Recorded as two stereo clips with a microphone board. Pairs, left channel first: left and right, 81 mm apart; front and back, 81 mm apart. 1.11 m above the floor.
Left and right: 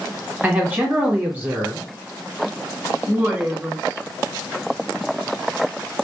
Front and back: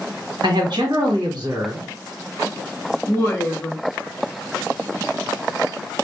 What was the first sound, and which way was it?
A man speaking, 160° right.